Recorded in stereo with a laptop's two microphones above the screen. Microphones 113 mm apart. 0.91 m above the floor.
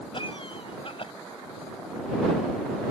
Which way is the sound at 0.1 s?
50° left (ahead or behind).